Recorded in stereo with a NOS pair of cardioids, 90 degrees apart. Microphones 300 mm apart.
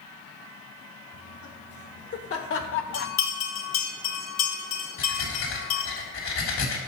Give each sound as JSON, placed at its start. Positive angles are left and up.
{"t": 1.1, "sound": "laughter", "azimuth_deg": 55, "distance_m": 3.5}
{"t": 2.9, "sound": "a bell", "azimuth_deg": 65, "distance_m": 2.0}
{"t": 5.0, "sound": "breathing", "azimuth_deg": 60, "distance_m": 3.5}